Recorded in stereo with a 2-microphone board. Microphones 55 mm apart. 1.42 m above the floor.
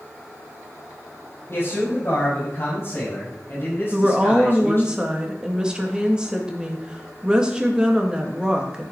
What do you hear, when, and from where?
1.5 s a man speaking: 45° left (ahead or behind), 7.5 m; by 4.9 s 40° left (ahead or behind), 10 m
3.9 s a woman speaking: 15° right (ahead or behind), 2 m